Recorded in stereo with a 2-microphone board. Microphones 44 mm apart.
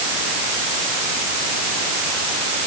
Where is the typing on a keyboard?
No typing on a keyboard in this recording.